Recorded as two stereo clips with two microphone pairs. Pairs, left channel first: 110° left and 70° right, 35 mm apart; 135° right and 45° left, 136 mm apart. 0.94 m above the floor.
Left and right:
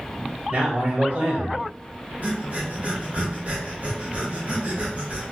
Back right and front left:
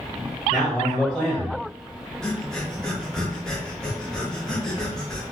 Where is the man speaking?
50° right, 1.7 m.